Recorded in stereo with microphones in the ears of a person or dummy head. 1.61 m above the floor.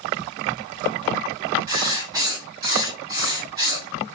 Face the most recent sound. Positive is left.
turn(degrees=-20)  # may be behind; listen again after turning